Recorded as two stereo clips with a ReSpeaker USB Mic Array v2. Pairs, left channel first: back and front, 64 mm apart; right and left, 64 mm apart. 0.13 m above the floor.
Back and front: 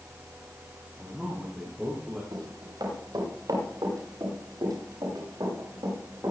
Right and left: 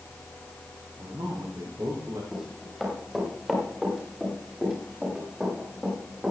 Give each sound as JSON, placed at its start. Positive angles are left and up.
{"t": 1.0, "sound": "a man speaking", "azimuth_deg": 70, "distance_m": 6.5}
{"t": 2.3, "sound": "running footsteps", "azimuth_deg": 5, "distance_m": 7.5}